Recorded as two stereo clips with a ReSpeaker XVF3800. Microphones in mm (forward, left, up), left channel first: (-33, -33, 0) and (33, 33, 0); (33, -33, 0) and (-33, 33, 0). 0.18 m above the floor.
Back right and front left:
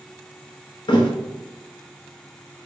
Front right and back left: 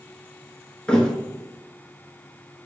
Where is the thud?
125° right, 0.6 m.